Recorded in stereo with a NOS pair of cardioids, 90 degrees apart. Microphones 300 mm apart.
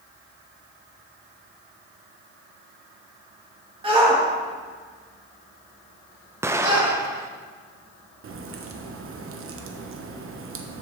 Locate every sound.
3.8 s a shout: 20° right, 2.5 m; by 6.9 s 40° right, 4.5 m
6.4 s an explosion: 10° right, 0.7 m
8.2 s a crack: 50° right, 1.1 m